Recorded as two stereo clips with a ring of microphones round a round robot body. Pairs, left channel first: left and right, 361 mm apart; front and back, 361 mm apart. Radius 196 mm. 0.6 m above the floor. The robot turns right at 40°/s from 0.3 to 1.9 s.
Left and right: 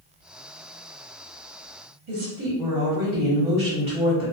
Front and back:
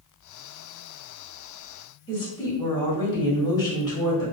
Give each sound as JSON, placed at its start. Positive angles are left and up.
{"t": 2.1, "sound": "a woman speaking", "azimuth_deg": -70, "distance_m": 1.3}